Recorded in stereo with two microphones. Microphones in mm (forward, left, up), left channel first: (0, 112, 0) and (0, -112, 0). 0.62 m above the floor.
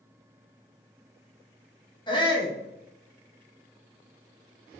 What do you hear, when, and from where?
2.1 s a shout: 20° left (ahead or behind), 0.6 m